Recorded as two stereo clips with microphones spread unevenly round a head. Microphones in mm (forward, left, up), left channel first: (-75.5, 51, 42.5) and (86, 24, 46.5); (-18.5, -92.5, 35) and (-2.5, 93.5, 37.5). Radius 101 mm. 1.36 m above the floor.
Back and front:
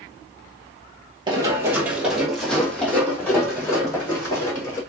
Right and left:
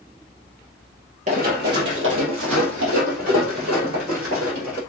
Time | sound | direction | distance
1.3 | running footsteps | 45° left | 1.9 m